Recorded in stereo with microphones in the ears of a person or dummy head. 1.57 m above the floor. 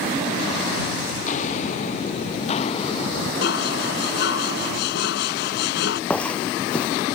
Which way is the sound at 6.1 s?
10° left (ahead or behind).